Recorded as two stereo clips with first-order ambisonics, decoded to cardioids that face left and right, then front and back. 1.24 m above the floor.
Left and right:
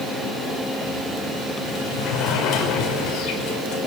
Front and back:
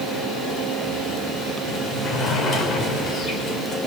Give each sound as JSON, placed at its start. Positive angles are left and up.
{"t": 1.7, "sound": "a sliding door", "azimuth_deg": 60, "distance_m": 6.0}